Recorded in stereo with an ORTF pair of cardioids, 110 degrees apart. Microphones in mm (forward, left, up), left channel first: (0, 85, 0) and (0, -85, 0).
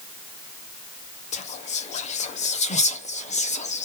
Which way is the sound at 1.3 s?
45° left.